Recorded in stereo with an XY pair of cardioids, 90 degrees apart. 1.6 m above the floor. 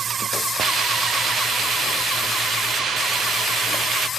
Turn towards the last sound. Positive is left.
turn(degrees=-65)